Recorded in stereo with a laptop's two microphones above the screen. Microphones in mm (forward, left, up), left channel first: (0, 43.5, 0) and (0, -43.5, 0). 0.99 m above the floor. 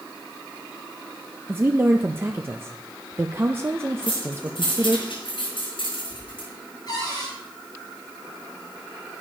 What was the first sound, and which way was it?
A woman speaking, 25° right (ahead or behind).